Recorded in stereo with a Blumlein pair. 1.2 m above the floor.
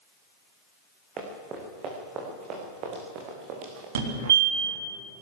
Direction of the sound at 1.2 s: 25° right.